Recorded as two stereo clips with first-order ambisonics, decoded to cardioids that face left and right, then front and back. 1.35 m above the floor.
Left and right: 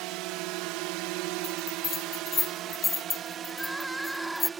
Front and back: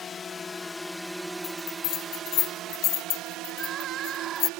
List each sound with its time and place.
0.0 s a drone: 65° right; by 4.6 s 160° right
1.4 s a bell: 20° left
3.5 s crying: 175° right